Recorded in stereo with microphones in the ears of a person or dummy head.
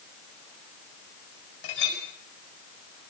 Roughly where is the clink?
Left.